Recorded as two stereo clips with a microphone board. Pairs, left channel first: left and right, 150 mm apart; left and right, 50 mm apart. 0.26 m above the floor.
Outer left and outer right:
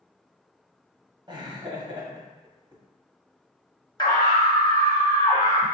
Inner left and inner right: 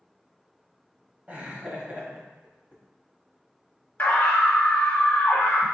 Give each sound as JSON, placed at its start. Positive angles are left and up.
{"t": 1.3, "sound": "laughter", "side_deg": -35, "distance_m": 1.0}
{"t": 4.0, "sound": "a scream", "side_deg": 30, "distance_m": 1.1}